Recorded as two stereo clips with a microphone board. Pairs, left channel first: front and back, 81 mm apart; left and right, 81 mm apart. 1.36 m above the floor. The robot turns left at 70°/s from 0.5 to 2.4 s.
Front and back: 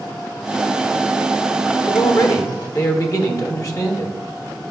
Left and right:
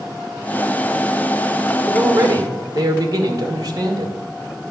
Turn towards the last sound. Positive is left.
turn(degrees=-50)